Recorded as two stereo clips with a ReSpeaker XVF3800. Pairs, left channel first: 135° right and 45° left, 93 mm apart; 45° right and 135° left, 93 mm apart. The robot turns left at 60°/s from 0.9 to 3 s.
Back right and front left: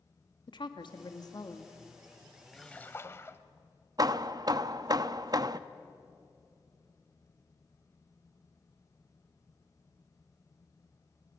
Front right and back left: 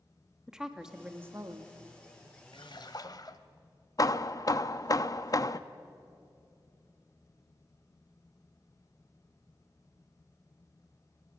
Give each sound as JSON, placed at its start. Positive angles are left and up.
{"t": 0.5, "sound": "a woman speaking", "azimuth_deg": -145, "distance_m": 1.7}
{"t": 2.5, "sound": "a splash", "azimuth_deg": -50, "distance_m": 1.1}
{"t": 4.0, "sound": "hammering", "azimuth_deg": 0, "distance_m": 0.7}